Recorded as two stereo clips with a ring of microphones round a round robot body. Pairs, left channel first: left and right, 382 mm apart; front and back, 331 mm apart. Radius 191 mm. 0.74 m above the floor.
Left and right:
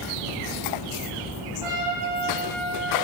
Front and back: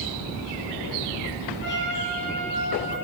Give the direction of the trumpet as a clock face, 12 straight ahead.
2 o'clock.